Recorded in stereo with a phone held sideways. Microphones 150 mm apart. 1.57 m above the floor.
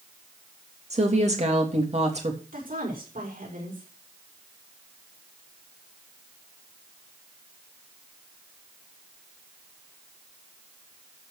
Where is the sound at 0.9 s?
50° right (ahead or behind), 3 m.